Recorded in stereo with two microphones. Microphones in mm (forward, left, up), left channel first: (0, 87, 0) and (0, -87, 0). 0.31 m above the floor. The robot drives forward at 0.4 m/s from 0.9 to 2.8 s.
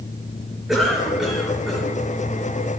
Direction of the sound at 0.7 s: Centre (ahead or behind).